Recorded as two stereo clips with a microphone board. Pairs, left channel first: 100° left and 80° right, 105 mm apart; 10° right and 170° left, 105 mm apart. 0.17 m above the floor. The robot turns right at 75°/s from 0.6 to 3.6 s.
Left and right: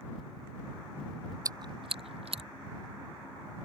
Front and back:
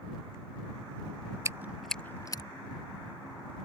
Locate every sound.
1.4 s chewing: 130° right; by 2.4 s 55° right